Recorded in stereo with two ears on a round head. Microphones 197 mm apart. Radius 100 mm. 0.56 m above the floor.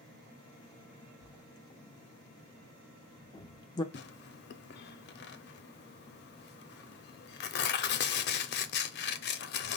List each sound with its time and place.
1.2 s writing: 20° left (ahead or behind), 0.6 m
3.9 s tearing paper: 45° left (ahead or behind), 0.5 m